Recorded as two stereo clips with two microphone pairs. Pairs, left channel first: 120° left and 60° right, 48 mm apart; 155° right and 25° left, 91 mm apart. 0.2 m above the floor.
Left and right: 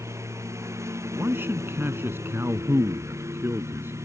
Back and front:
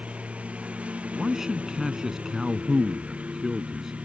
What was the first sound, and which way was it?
A lawn mower, 50° right.